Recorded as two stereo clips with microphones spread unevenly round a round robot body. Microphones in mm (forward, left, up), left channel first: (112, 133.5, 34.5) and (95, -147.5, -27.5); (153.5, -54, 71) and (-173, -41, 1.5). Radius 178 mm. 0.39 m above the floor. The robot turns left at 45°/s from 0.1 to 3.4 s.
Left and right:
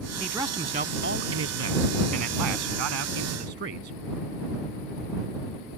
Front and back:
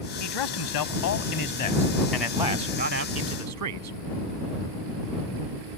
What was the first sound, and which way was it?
A man speaking, 5° right.